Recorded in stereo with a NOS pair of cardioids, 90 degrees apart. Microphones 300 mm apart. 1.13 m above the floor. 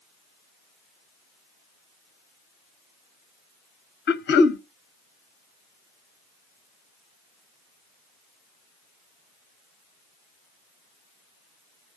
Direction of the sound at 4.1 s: 35° left.